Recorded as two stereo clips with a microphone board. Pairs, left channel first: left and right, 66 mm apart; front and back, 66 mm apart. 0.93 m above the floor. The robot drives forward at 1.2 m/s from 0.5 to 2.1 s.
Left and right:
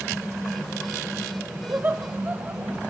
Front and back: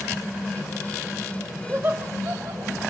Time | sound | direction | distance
1.7 | laughter | 125° right | 0.7 m